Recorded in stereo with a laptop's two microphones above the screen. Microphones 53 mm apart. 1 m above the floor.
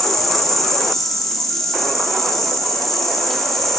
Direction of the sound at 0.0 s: 5° left (ahead or behind).